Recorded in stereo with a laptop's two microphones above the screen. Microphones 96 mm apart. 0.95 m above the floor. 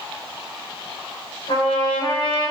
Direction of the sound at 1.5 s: 70° left (ahead or behind).